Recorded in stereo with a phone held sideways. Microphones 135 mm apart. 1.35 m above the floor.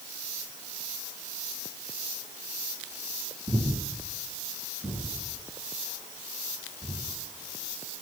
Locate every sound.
3.5 s breathing: 35° right (ahead or behind), 5.5 m